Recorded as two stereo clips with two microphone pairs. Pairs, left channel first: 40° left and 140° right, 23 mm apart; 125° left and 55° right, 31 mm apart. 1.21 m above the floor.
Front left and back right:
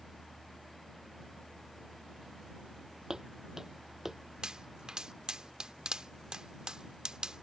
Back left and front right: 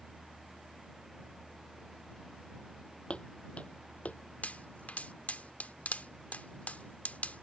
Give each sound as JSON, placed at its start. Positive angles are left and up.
{"t": 3.1, "sound": "footsteps", "azimuth_deg": 160}
{"t": 4.4, "sound": "a pop", "azimuth_deg": 160}